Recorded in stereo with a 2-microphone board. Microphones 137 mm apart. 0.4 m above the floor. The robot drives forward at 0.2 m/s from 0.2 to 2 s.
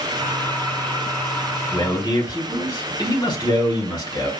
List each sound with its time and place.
1.7 s a man speaking: 30° left (ahead or behind), 1.6 m